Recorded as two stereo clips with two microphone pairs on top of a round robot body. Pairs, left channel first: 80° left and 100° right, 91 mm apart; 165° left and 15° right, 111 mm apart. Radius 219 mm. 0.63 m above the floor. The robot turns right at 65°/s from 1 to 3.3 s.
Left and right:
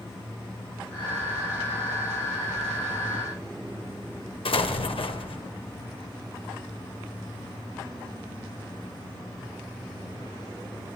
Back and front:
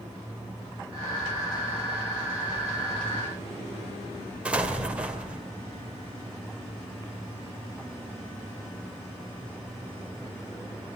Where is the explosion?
65° left, 2 m.